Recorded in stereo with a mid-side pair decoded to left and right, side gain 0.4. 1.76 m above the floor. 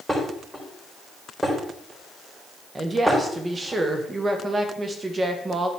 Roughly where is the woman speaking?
Ahead right.